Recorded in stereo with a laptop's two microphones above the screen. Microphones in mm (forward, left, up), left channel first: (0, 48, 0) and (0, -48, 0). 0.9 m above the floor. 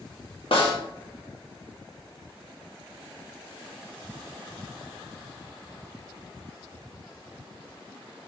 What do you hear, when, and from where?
0.5 s a snare drum: 65° left (ahead or behind), 1.0 m